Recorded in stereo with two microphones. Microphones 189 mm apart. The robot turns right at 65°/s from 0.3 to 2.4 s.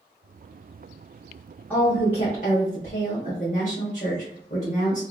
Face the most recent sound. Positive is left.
turn(degrees=55)